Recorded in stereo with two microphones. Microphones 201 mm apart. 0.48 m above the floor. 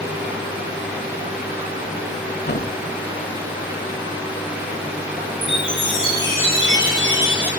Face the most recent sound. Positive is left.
turn(degrees=65)  # may be behind; listen again after turning